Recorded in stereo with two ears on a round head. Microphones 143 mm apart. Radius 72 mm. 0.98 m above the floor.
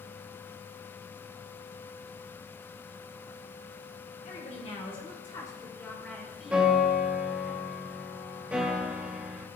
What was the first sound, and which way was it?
A woman speaking, 45° left (ahead or behind).